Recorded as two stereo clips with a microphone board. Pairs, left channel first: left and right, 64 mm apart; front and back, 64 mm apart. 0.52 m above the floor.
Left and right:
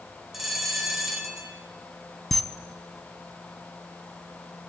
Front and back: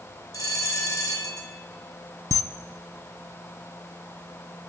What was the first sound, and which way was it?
A bell, 5° right.